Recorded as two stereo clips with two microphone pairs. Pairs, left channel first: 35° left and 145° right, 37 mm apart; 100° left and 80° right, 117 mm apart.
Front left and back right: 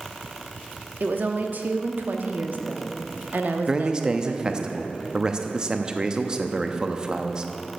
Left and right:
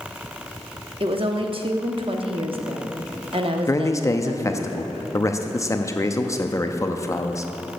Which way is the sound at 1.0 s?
115° right.